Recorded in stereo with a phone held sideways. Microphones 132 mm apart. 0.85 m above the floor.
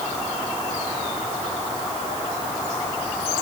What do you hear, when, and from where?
Only background noise.